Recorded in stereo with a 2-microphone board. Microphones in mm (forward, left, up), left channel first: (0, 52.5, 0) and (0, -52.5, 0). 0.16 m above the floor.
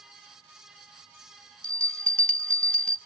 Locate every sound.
1.6 s a bell: 10° left (ahead or behind), 0.6 m